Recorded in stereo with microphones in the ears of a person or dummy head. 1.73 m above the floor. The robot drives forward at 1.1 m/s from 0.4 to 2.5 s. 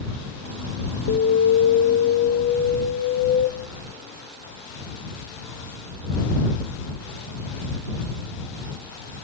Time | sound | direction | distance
1.1 | an alarm | 50° left (ahead or behind) | 1.1 m